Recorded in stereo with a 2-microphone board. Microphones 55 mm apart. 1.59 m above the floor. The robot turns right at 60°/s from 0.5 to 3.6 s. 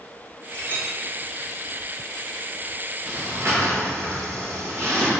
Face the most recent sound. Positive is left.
turn(degrees=-65)  # may be behind; listen again after turning